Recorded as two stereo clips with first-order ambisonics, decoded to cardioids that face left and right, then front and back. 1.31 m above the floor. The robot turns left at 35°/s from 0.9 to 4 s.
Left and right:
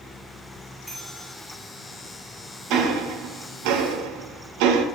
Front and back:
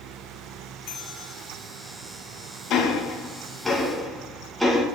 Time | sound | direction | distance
0.9 | a bell | 10° right | 1.7 m
2.7 | ticking | 45° right | 1.1 m